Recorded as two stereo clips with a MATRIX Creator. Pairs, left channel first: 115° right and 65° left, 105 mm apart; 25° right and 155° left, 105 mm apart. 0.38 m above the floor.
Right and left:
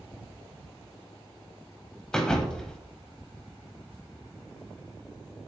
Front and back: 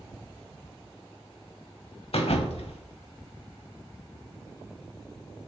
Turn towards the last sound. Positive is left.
turn(degrees=-30)